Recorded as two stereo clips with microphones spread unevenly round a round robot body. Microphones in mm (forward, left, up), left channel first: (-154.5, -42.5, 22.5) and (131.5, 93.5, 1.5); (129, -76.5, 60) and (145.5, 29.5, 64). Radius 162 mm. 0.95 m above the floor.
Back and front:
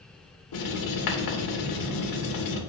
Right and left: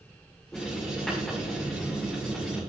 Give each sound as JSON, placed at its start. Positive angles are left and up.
{"t": 0.5, "sound": "writing", "azimuth_deg": 175, "distance_m": 2.5}